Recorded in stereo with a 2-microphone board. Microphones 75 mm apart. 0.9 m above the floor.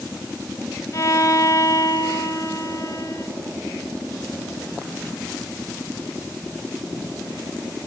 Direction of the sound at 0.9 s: 40° left (ahead or behind).